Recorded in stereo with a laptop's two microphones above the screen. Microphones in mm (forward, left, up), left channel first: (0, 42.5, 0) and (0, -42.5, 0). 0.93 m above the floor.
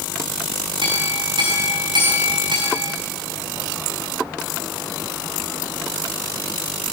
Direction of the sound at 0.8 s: 65° right (ahead or behind).